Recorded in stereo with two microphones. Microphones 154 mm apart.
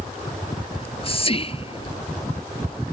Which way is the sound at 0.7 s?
40° left (ahead or behind).